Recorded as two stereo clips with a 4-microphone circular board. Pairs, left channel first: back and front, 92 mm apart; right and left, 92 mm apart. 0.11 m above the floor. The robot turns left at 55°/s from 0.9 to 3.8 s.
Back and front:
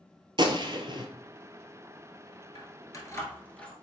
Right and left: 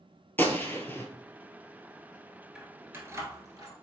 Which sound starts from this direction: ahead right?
A gunshot, at 0.4 s.